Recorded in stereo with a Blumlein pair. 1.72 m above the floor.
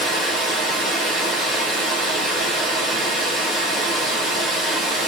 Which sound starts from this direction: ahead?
Running water, at 0.0 s.